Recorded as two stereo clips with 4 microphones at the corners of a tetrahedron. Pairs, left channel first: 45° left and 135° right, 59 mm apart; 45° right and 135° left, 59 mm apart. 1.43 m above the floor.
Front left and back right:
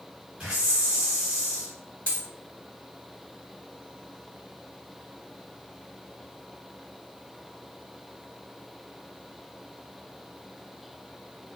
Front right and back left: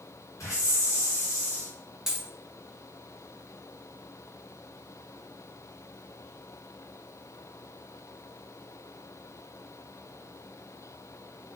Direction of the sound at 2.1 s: 65° left.